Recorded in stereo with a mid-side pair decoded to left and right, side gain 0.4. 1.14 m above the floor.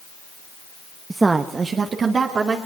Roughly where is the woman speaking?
Ahead.